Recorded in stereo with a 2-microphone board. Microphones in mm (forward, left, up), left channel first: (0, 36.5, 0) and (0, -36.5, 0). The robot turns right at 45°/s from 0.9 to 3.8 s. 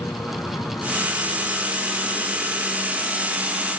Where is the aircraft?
55° left; by 3.8 s 175° right.